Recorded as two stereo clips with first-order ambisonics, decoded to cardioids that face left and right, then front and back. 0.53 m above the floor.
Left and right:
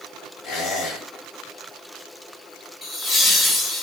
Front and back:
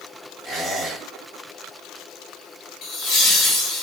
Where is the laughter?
20° left, 0.8 m.